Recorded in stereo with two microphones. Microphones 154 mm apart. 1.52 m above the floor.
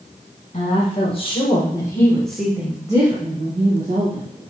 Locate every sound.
0.5 s a woman speaking: 45° left (ahead or behind), 2.5 m; by 4.2 s 60° right (ahead or behind), 1.9 m